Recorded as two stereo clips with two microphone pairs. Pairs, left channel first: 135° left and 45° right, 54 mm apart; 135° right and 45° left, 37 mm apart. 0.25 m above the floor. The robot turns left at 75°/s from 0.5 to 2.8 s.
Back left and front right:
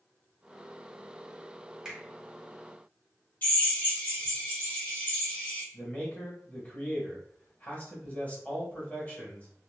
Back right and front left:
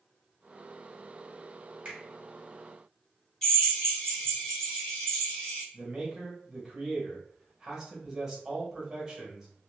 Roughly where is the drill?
Behind.